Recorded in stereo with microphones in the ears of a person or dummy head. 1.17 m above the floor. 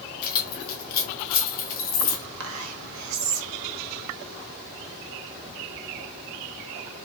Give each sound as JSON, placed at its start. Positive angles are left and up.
{"t": 0.2, "sound": "keys jangling", "side_deg": 50, "distance_m": 1.2}
{"t": 2.4, "sound": "whispering", "side_deg": -75, "distance_m": 1.3}